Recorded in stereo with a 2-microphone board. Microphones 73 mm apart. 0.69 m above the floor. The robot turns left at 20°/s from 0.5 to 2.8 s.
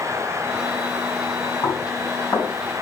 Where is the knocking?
50° left (ahead or behind), 3.5 m; by 2.5 s 35° left (ahead or behind), 3.5 m.